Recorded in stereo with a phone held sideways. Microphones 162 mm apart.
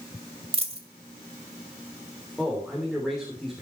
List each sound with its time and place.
0.5 s a dropped coin: 35° right (ahead or behind), 1.5 m
2.4 s a man speaking: centre (ahead or behind), 3.5 m